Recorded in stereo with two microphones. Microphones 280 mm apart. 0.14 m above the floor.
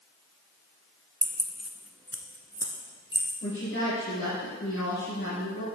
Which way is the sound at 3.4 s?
40° left (ahead or behind).